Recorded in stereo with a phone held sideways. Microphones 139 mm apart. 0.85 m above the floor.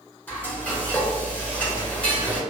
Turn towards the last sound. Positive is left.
turn(degrees=10)  # may be behind; listen again after turning